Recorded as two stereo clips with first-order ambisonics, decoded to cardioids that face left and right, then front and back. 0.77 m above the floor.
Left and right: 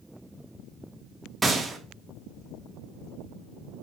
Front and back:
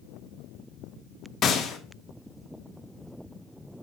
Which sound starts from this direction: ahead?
A gunshot, at 1.4 s.